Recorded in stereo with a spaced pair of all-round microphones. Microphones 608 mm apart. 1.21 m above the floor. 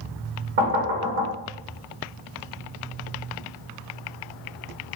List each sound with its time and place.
0.6 s knocking: 70° right (ahead or behind), 1.2 m